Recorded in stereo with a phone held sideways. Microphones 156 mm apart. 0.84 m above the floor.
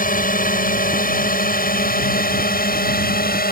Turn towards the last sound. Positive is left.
turn(degrees=70)  # may be behind; listen again after turning